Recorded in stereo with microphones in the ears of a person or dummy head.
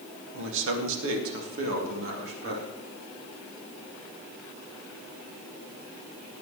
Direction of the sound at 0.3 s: 70° right (ahead or behind).